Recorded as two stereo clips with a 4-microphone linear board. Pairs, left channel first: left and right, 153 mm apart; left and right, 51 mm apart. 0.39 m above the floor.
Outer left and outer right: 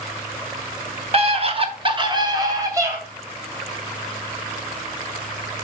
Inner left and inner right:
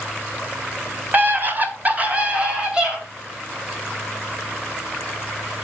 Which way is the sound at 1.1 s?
40° right (ahead or behind).